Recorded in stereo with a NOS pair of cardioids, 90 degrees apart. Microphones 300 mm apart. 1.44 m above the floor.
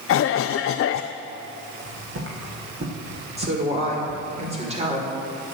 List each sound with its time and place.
0.1 s a cough: 50° left, 0.5 m
1.8 s footsteps: 45° right, 5 m
3.4 s a woman speaking: 20° right, 5.5 m